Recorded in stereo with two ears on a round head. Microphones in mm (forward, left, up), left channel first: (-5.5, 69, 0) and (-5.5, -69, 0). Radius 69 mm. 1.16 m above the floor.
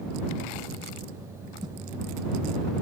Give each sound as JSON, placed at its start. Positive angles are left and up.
{"t": 1.6, "sound": "a whoosh", "side_deg": -30}